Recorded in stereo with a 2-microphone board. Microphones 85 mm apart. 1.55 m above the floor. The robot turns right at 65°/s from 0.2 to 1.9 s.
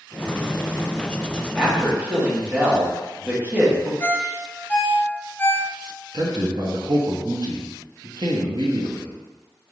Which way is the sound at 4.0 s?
20° left (ahead or behind).